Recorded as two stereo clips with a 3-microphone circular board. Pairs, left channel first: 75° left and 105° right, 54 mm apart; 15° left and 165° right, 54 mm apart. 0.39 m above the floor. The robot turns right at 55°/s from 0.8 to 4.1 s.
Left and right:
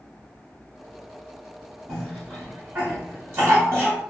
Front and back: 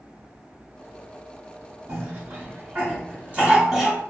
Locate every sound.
1.9 s a cough: 165° left, 1.1 m; by 4.0 s 80° right, 1.1 m